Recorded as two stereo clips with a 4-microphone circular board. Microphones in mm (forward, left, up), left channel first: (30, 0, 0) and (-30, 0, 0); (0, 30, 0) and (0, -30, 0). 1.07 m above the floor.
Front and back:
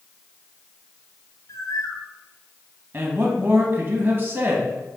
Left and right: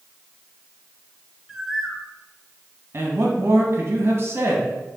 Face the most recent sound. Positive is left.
turn(degrees=-130)